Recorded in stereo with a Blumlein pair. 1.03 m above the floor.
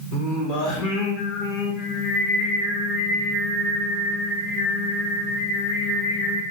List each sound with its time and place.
0.1 s singing: 35° left, 1.2 m